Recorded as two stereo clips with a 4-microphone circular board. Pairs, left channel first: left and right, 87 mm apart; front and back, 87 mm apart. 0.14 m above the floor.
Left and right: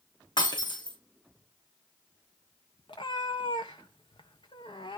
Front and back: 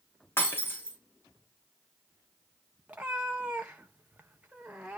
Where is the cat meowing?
105° left, 1.8 m.